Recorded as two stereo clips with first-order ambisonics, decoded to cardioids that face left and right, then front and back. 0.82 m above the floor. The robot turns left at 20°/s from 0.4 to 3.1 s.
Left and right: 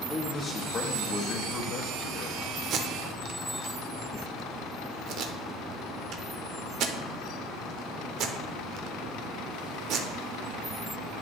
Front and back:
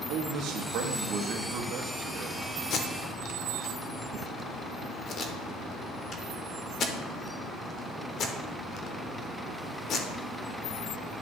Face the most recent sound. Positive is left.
turn(degrees=-50)